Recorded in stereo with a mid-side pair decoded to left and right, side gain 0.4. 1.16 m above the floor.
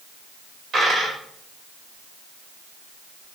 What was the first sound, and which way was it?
A dropped coin, 55° right.